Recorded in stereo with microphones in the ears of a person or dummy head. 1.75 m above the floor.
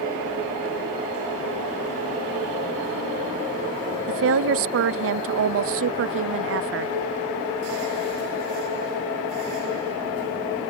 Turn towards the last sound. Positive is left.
turn(degrees=-65)  # may be behind; listen again after turning